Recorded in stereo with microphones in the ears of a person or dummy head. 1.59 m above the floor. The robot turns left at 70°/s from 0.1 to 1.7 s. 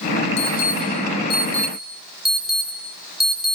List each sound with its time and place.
0.4 s an alarm: 85° left, 7.5 m; by 3.5 s centre (ahead or behind), 7.5 m